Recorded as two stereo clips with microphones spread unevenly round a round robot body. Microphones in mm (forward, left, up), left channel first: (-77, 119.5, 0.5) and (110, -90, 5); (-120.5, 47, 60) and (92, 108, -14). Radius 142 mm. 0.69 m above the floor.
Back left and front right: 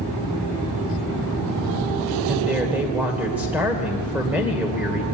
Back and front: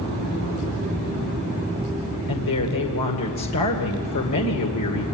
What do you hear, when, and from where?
2.3 s a woman speaking: 135° right, 2 m